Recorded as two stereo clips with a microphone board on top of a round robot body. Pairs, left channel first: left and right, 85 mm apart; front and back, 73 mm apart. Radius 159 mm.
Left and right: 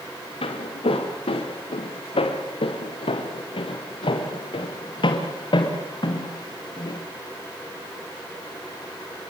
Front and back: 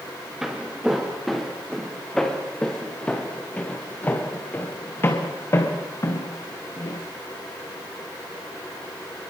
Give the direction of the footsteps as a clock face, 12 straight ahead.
9 o'clock.